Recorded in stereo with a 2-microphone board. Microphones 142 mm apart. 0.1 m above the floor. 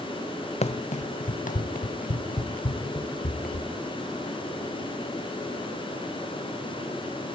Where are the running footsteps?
50° left (ahead or behind), 1.1 m; by 3.7 s 80° left, 4 m.